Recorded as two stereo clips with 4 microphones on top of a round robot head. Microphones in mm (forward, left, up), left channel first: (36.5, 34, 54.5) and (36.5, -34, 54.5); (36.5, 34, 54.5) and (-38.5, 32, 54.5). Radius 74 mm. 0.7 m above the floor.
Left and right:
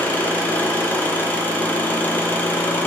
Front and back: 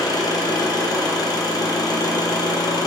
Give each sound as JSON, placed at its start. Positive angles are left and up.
{"t": 0.0, "sound": "an engine running", "azimuth_deg": 30, "distance_m": 1.1}